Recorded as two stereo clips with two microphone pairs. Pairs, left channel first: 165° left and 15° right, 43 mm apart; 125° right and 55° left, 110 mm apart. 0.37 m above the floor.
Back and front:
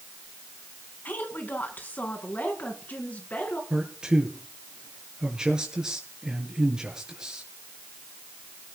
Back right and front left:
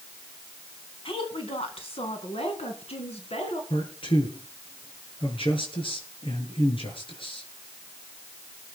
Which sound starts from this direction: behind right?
A woman speaking, at 1.1 s.